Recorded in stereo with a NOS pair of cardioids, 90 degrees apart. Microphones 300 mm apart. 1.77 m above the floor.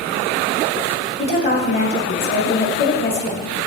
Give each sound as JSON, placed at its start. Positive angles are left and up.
{"t": 1.2, "sound": "a woman speaking", "azimuth_deg": 35, "distance_m": 1.7}